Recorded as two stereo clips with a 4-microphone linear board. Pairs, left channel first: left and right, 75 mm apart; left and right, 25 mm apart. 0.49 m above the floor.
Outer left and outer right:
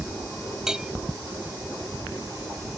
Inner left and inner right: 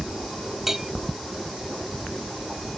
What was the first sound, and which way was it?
A bell, 10° right (ahead or behind).